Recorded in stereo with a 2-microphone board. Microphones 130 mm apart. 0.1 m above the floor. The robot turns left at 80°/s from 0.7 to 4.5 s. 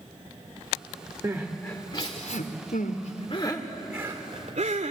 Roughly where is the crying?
Right.